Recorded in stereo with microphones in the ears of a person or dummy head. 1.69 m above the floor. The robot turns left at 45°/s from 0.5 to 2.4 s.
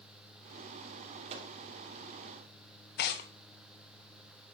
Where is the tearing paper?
55° left (ahead or behind), 1.9 m.